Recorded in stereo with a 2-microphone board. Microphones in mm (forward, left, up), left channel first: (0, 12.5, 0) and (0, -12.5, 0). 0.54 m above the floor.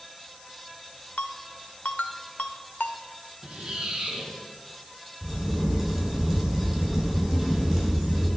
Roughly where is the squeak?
Right.